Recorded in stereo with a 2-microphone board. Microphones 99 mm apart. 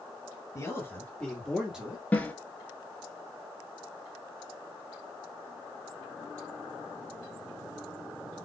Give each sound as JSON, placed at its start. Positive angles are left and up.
{"t": 0.6, "sound": "a man speaking", "side_deg": 30, "distance_m": 2.0}
{"t": 2.1, "sound": "a snare drum", "side_deg": 15, "distance_m": 0.8}